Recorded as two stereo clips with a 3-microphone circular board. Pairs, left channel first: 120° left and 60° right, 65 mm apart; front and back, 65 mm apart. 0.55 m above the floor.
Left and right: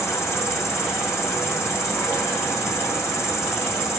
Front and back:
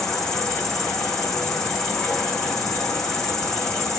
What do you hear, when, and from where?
0.0 s an insect: 80° left, 1.1 m